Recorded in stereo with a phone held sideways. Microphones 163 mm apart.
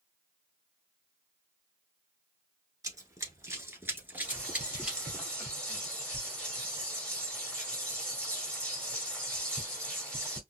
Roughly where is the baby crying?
No baby crying in this recording.